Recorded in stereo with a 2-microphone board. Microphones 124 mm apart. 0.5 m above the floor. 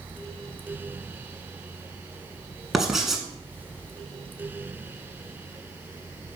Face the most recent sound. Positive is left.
turn(degrees=-5)  # may be behind; listen again after turning